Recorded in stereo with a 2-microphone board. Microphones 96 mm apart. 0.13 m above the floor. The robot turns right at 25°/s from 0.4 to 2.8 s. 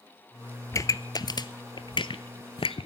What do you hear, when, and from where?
0.7 s a pop: 30° left (ahead or behind), 0.6 m; by 2.9 s 70° left (ahead or behind), 0.6 m